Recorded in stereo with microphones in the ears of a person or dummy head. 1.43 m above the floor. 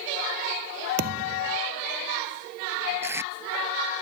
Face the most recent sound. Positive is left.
turn(degrees=-20)  # may be behind; listen again after turning